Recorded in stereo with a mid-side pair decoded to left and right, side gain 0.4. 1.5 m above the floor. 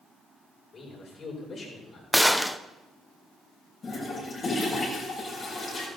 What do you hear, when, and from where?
0.7 s a man speaking: 55° left, 7.5 m
2.1 s a gunshot: 5° left, 0.8 m
3.8 s a toilet flushing: 50° left, 7 m